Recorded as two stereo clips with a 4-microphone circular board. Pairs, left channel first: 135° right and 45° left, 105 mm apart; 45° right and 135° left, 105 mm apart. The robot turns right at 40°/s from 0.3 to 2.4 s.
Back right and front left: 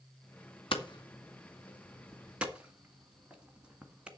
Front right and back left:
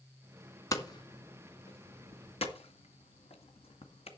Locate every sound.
0.7 s hammering: 100° right, 2.0 m; by 4.1 s 35° right, 2.0 m